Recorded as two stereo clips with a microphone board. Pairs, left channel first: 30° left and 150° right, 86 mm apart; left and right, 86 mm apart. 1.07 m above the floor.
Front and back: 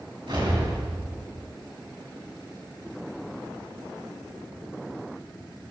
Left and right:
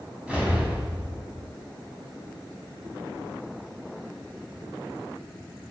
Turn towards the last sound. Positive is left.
turn(degrees=-170)